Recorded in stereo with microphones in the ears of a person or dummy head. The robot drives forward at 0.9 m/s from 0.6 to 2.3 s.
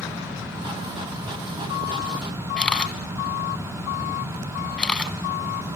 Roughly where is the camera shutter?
Centre.